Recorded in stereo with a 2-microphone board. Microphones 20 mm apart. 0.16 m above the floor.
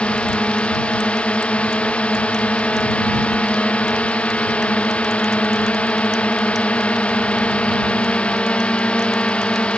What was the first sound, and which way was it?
A drone, 65° left (ahead or behind).